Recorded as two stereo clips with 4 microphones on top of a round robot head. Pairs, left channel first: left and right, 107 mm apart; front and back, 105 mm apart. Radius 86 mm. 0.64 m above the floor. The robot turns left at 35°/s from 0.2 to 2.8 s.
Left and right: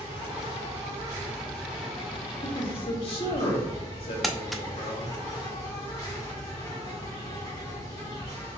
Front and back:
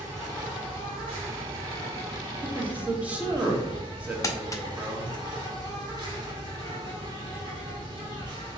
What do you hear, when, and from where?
0.0 s an insect: 125° right, 2 m; by 8.6 s 145° left, 2 m
2.4 s a man speaking: 120° left, 1.3 m; by 5.2 s 105° left, 1.3 m
4.2 s crumpling: straight ahead, 0.6 m